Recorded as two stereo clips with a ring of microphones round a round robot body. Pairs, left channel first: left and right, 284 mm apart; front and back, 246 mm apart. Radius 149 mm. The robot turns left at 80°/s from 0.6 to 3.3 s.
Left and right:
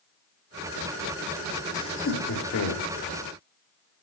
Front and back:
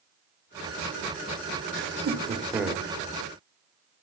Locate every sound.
1.7 s laughter: 165° left, 2 m; by 2.9 s 75° left, 2 m